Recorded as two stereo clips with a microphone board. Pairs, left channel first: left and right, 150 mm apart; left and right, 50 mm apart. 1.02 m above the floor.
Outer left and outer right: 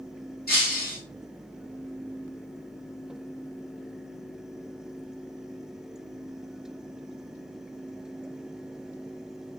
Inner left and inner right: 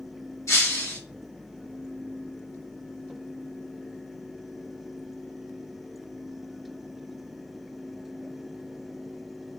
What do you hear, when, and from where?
0.5 s breaking glass: 70° left (ahead or behind), 1.9 m